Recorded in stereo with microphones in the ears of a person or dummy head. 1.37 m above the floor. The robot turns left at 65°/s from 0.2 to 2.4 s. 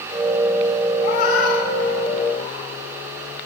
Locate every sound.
1.0 s a cat meowing: 35° left (ahead or behind), 1.0 m; by 2.7 s 30° left (ahead or behind), 1.0 m